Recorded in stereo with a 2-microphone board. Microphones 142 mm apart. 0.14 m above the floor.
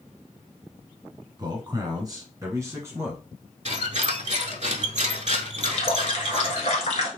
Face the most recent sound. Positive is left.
turn(degrees=50)  # may be behind; listen again after turning